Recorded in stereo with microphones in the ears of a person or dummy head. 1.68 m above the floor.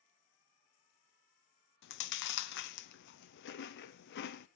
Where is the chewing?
65° left (ahead or behind), 0.8 m.